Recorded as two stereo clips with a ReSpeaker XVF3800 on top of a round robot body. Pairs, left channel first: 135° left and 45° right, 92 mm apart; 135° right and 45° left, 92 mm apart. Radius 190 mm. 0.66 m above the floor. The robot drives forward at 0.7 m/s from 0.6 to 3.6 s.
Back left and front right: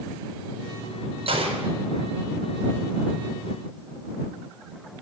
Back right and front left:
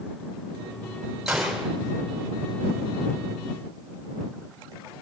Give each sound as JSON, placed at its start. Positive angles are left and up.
{"t": 1.3, "sound": "a gunshot", "azimuth_deg": -40, "distance_m": 4.5}